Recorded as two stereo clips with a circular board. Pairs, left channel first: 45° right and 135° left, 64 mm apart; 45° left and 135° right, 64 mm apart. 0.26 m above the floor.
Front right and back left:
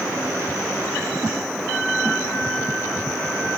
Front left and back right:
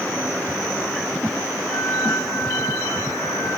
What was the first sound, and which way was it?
A flute, 25° left.